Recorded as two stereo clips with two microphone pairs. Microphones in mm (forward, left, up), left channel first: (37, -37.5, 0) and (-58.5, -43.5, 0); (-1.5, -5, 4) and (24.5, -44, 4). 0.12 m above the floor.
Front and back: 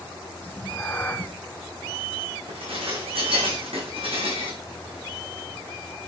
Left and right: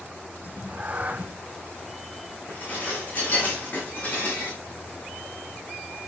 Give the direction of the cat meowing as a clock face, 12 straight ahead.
2 o'clock.